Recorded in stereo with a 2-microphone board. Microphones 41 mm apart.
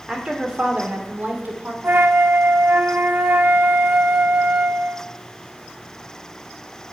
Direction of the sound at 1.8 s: 55° right (ahead or behind).